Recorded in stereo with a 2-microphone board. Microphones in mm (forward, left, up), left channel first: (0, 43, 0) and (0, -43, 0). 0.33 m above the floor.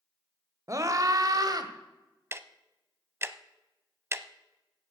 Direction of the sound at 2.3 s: 30° right (ahead or behind).